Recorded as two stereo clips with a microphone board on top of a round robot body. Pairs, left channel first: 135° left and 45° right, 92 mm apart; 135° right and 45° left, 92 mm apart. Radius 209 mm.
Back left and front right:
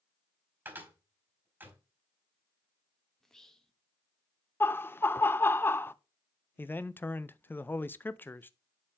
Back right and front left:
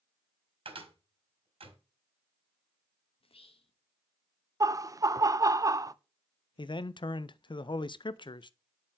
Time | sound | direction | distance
0.7 | a cupboard door | 25° left | 4 m
3.2 | whispering | 140° right | 1.4 m
4.6 | laughter | 80° left | 0.8 m
6.6 | a man speaking | 155° right | 0.6 m